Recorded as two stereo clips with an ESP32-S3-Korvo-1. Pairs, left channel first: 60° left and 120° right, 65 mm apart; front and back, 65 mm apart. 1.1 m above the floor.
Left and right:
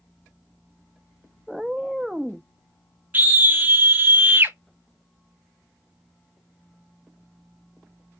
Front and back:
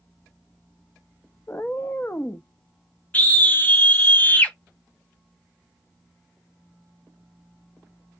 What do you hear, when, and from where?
1.5 s a cat meowing: 40° right, 0.5 m
3.1 s a scream: 60° right, 1.4 m